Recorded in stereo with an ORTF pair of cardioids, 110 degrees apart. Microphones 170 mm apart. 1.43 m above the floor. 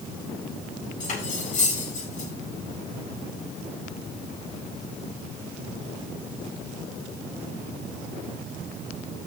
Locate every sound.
1.0 s cutlery clinking: 50° left, 8 m